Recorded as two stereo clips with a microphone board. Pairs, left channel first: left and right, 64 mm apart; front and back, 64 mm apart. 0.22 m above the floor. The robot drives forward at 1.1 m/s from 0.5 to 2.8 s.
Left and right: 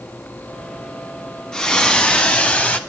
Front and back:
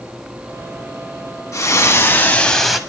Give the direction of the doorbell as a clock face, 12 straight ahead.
I don't hear a doorbell.